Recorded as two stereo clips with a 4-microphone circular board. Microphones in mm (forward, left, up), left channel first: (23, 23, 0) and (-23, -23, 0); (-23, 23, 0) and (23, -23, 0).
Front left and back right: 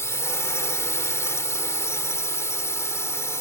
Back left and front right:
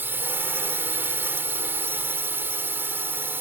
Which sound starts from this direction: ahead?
A drone, at 0.0 s.